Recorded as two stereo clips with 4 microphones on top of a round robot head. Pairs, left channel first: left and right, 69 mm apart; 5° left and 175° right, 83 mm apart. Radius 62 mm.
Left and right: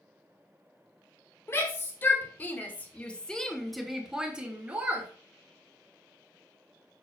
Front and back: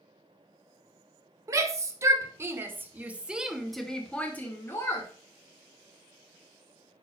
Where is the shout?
145° left, 1.8 m; by 5.1 s 35° right, 1.3 m.